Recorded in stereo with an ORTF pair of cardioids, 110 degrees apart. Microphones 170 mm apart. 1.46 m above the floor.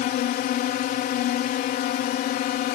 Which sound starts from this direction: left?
A drone, at 0.0 s.